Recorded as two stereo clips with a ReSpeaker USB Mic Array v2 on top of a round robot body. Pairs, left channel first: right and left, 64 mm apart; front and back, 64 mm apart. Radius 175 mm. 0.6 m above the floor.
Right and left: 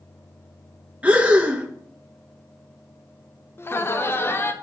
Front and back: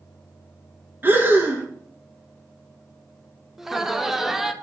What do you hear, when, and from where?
1.0 s breathing: 145° left, 1.4 m
3.6 s laughter: 100° right, 1.1 m